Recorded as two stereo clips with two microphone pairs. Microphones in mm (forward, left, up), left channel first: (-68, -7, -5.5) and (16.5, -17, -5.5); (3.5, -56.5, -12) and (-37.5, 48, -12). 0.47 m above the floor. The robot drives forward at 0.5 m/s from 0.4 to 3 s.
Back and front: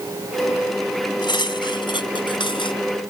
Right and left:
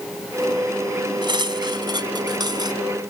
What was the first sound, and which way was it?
Cutlery clinking, 155° left.